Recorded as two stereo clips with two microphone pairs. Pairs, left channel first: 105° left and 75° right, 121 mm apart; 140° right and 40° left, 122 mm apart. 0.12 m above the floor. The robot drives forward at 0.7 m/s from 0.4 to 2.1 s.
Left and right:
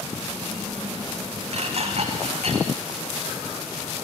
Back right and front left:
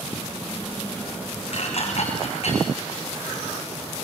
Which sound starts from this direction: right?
Dishes clattering, at 1.5 s.